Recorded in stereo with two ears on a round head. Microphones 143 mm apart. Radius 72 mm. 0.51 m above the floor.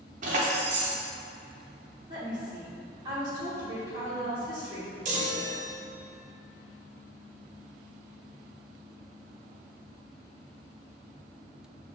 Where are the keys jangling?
50° right (ahead or behind), 0.6 m.